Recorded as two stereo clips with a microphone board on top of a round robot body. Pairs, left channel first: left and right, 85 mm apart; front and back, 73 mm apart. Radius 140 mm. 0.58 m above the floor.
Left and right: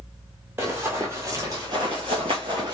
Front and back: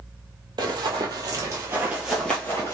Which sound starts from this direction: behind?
Running footsteps, at 0.6 s.